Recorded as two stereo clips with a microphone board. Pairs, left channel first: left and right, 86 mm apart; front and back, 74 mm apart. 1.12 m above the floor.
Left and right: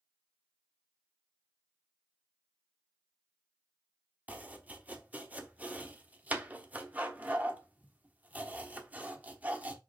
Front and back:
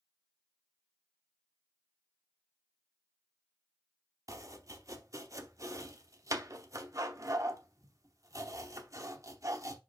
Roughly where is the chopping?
Behind right.